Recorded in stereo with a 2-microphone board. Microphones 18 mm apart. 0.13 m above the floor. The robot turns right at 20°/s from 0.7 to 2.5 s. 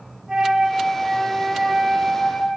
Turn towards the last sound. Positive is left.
turn(degrees=-10)